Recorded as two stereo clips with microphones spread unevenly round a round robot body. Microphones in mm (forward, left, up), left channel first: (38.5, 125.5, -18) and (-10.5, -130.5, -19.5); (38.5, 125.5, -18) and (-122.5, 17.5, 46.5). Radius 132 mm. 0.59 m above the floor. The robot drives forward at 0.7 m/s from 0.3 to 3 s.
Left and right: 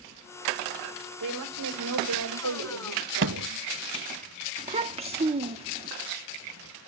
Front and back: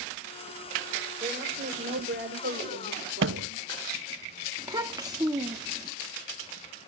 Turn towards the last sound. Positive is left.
turn(degrees=-55)